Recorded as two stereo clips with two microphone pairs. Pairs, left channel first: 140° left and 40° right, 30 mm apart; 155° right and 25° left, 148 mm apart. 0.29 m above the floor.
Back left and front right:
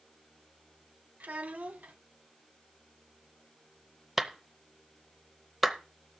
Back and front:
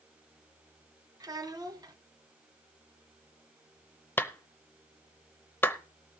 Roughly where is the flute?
I don't hear a flute.